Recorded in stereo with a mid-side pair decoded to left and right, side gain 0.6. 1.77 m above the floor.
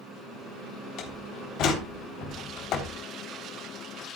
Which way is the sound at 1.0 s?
60° left.